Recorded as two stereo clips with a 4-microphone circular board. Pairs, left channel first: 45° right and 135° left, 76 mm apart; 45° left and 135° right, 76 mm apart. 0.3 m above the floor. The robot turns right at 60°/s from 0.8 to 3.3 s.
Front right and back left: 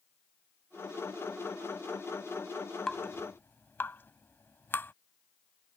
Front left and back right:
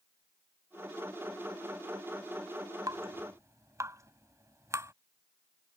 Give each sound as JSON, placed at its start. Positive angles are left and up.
{"t": 2.9, "sound": "dripping", "azimuth_deg": -125}